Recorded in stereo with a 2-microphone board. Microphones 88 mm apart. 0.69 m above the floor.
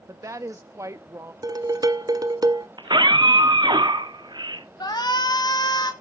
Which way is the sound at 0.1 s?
35° right (ahead or behind).